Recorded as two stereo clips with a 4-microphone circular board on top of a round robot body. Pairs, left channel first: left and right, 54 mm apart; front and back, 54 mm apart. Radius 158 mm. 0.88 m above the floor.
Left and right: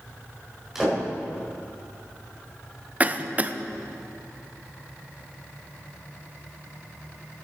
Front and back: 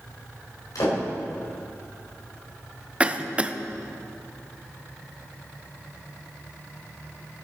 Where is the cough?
130° right, 0.8 m.